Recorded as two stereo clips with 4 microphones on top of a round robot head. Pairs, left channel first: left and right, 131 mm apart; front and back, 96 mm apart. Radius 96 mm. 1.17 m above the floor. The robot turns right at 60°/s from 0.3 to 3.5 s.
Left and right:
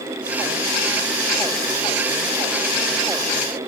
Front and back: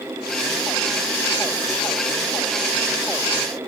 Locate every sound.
Only background noise.